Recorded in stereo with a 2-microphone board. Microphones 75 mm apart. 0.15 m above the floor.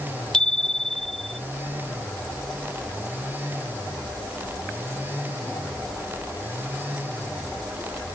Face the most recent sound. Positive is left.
turn(degrees=5)  # may be behind; listen again after turning